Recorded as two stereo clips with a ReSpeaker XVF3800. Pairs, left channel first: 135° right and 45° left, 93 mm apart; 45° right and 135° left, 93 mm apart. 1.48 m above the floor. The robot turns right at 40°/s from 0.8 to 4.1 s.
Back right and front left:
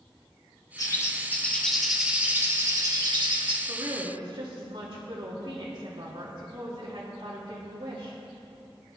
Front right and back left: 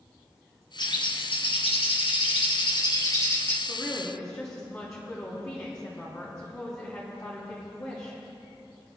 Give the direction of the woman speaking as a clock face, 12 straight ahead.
12 o'clock.